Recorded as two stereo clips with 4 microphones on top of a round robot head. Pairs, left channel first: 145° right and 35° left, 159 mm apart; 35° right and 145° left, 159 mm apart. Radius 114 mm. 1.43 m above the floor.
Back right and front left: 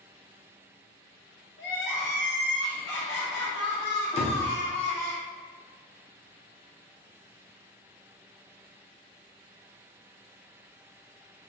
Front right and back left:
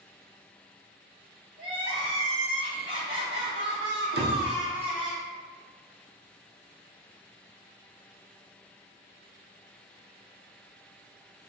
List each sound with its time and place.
1.6 s crying: 165° right, 1.4 m
4.1 s a door slam: 165° left, 0.7 m